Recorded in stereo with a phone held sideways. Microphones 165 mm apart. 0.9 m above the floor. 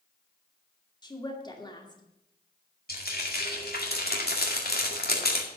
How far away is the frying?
About 2 m.